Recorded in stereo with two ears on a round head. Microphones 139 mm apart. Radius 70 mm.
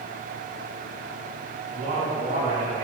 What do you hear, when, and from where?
1.7 s a man speaking: 55° right (ahead or behind), 4.5 m